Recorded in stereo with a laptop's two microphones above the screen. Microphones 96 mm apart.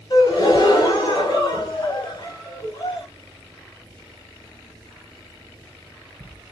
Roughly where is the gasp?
Left.